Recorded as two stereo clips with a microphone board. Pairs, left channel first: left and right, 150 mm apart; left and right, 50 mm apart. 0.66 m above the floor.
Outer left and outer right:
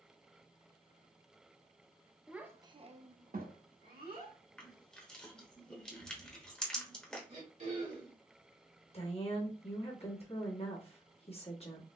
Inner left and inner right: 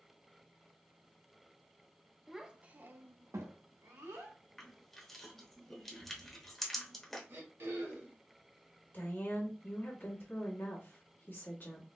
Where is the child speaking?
5° right (ahead or behind), 0.7 m; by 4.4 s 80° right, 1.2 m.